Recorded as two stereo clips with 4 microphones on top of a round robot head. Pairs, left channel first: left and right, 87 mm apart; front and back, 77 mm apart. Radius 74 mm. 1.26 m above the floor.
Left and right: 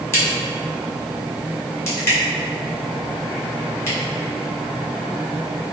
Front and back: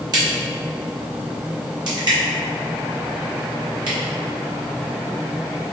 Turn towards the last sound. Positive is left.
turn(degrees=150)